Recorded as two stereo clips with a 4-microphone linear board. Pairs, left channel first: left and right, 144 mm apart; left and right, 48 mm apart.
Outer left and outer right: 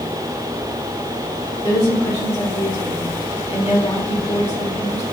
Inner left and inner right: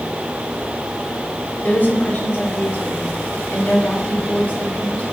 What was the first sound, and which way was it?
A woman speaking, 45° left (ahead or behind).